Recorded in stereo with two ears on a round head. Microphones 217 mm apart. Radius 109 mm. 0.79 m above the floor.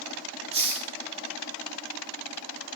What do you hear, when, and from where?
0.5 s a hiss: 25° right (ahead or behind), 2 m